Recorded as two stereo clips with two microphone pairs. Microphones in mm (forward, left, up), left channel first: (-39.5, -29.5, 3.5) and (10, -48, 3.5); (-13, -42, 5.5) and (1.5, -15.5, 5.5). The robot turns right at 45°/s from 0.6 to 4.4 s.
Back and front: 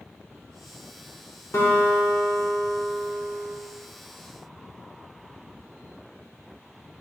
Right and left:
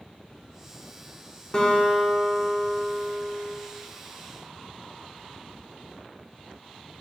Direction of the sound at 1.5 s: 175° right.